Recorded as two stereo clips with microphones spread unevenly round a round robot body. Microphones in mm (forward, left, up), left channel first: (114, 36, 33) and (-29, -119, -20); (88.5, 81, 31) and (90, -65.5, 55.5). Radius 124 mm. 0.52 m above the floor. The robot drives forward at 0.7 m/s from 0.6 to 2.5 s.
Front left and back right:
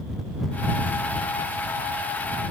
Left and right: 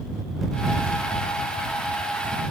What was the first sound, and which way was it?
Only background noise.